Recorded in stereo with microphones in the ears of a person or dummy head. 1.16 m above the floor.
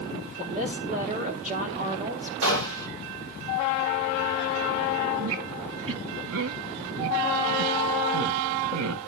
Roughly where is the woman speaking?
Right.